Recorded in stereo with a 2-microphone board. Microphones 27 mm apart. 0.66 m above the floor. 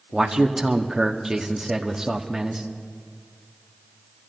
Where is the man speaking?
20° right (ahead or behind), 1.1 m.